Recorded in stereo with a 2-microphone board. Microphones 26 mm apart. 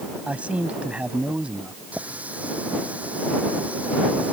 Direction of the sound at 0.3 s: 60° right (ahead or behind).